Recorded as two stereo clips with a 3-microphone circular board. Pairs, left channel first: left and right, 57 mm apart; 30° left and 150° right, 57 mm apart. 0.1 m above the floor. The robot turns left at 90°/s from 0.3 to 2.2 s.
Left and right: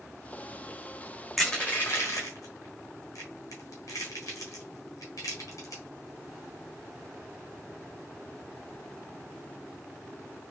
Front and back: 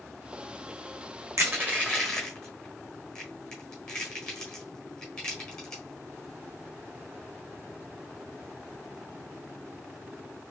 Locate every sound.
1.4 s crushing: 175° right, 1.4 m; by 5.8 s 110° left, 1.4 m